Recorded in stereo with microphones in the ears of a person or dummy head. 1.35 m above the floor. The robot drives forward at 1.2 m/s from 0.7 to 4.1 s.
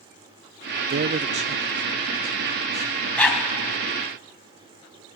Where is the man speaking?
50° right (ahead or behind), 0.6 m; by 3.1 s 10° right (ahead or behind), 3 m.